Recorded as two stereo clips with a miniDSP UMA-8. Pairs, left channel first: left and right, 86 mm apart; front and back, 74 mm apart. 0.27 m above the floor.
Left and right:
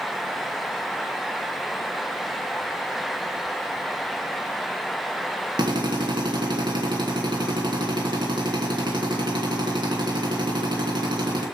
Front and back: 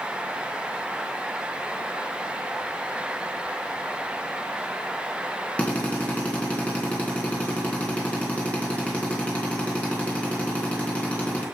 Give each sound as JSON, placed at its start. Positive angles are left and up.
{"t": 5.6, "sound": "a drill", "azimuth_deg": -70, "distance_m": 3.0}